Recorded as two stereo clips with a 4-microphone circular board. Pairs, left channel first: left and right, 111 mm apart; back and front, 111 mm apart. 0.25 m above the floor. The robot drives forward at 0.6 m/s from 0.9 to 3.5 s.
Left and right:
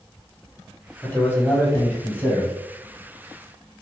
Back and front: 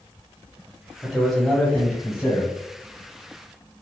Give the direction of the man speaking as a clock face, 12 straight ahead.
9 o'clock.